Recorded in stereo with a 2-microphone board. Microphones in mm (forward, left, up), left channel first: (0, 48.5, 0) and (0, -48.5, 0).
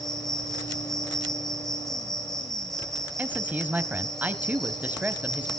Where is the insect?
5° left (ahead or behind), 5 m.